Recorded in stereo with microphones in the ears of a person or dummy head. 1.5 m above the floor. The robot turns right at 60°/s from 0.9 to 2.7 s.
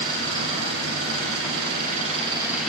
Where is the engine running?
105° right, 9 m; by 2.7 s 5° left, 9 m.